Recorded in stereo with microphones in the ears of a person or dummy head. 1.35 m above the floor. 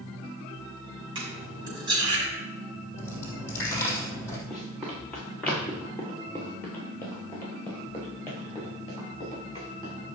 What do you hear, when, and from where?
1.1 s cutlery clinking: 25° right (ahead or behind), 5 m
3.0 s a dropped coin: 15° left (ahead or behind), 3.5 m
4.5 s running footsteps: 5° left (ahead or behind), 4.5 m; by 9.9 s 25° left (ahead or behind), 9 m